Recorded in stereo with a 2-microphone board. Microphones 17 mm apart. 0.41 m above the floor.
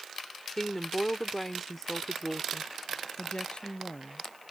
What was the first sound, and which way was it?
A woman speaking, 15° left (ahead or behind).